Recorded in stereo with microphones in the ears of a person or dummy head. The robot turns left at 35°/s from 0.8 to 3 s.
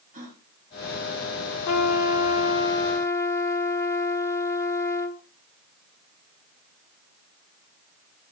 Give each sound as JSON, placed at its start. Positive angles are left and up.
{"t": 0.1, "sound": "a gasp", "side_deg": -40, "distance_m": 4.0}
{"t": 1.6, "sound": "a trumpet", "azimuth_deg": 70, "distance_m": 1.5}